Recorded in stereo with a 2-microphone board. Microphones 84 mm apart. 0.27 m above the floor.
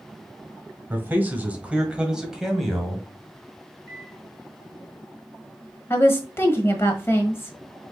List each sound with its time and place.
0.9 s a man speaking: 25° right (ahead or behind), 1.3 m; by 3.1 s centre (ahead or behind), 1.7 m
3.9 s a microwave: 20° left (ahead or behind), 2.5 m
5.9 s a woman speaking: 30° left (ahead or behind), 1.2 m